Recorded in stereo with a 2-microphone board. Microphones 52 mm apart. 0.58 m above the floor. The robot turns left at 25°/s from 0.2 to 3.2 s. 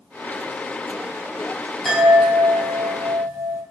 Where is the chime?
5° right, 4.5 m; by 3.6 s 40° right, 4.5 m.